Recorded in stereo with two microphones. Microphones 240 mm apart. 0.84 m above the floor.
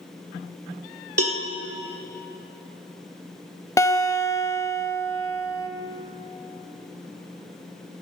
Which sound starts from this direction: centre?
A guitar, at 3.8 s.